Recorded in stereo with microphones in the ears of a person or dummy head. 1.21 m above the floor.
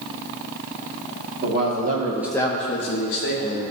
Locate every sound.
1.4 s a man speaking: 60° right (ahead or behind), 1.7 m; by 3.6 s 75° left (ahead or behind), 2 m